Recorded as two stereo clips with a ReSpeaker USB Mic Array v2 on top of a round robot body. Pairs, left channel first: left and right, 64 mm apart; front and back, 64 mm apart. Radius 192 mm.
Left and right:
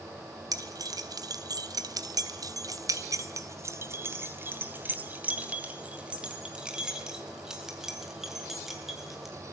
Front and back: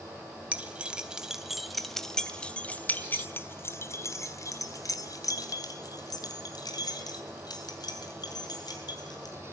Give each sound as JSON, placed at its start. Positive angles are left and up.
{"t": 0.5, "sound": "keys jangling", "azimuth_deg": -110, "distance_m": 3.0}